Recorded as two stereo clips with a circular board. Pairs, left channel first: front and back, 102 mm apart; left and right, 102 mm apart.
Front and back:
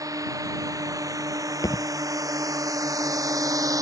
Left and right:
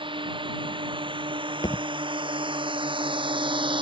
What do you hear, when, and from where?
0.0 s a drone: 125° right
1.6 s a thud: 50° left